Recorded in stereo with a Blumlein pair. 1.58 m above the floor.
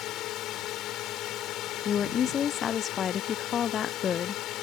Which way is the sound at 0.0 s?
35° left.